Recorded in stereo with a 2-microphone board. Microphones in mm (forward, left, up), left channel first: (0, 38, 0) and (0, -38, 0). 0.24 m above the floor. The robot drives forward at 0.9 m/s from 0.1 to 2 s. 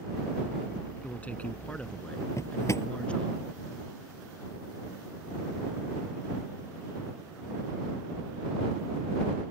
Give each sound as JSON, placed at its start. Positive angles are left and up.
{"t": 1.0, "sound": "a man speaking", "side_deg": 20}
{"t": 2.4, "sound": "a drawer", "side_deg": 40}